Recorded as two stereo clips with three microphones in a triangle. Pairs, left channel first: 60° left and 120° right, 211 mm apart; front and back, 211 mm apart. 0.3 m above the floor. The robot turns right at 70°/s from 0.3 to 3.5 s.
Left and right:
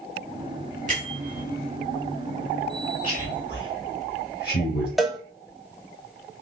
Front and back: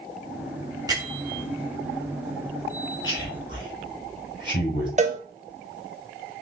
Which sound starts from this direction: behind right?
A bell, at 0.9 s.